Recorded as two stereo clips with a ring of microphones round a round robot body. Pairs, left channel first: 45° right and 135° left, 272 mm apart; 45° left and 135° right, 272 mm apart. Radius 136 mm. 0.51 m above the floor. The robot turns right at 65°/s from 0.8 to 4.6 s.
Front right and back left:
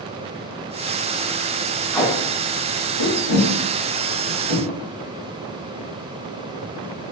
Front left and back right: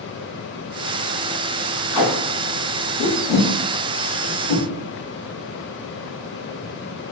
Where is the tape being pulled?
45° left, 0.9 m; by 4.6 s 145° right, 0.9 m.